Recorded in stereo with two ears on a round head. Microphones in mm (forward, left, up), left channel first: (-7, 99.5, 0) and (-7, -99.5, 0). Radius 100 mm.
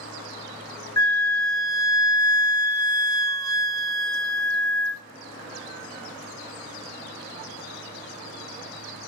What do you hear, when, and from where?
1.0 s a flute: 15° left (ahead or behind), 0.5 m